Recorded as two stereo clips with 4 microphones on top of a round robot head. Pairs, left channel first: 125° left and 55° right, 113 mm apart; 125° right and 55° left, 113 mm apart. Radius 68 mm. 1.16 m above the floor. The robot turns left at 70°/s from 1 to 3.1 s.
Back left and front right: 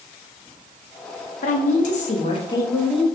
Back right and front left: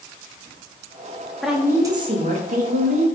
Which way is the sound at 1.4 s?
145° left.